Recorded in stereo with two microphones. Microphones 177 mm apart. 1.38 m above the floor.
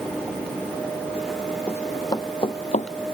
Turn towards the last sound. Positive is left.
turn(degrees=45)  # may be behind; listen again after turning